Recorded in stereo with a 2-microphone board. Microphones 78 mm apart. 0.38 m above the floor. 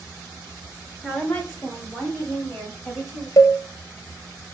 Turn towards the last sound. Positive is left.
turn(degrees=55)  # may be behind; listen again after turning